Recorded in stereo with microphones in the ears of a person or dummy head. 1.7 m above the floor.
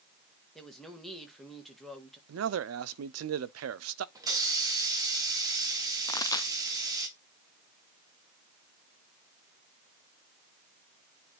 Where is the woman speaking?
5° left (ahead or behind), 1.6 m.